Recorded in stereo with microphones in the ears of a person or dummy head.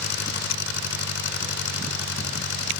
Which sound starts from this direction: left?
An engine running, at 0.0 s.